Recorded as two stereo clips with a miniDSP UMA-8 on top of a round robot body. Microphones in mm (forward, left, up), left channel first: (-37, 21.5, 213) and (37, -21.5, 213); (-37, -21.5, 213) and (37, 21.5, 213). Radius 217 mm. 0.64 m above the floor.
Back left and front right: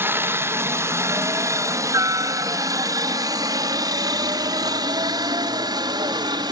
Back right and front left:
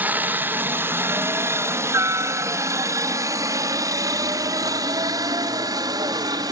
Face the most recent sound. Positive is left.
turn(degrees=-5)